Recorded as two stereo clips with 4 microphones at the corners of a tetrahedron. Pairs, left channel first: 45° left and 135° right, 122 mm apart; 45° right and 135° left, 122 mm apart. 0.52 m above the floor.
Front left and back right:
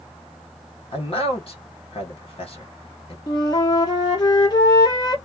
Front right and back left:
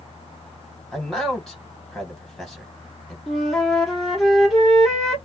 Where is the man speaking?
45° left, 1.9 m.